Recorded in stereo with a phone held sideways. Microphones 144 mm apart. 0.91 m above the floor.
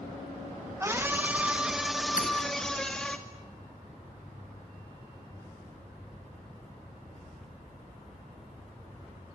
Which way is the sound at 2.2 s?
80° left.